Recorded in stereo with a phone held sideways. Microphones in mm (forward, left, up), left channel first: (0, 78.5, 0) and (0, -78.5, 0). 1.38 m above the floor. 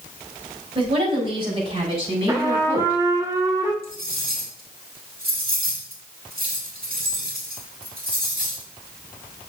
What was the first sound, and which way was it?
A woman speaking, 35° right (ahead or behind).